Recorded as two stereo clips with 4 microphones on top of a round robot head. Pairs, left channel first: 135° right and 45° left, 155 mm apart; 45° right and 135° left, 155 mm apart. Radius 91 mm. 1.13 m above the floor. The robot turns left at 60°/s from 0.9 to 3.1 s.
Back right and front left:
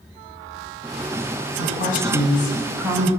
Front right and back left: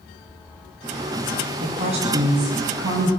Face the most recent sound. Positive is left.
turn(degrees=115)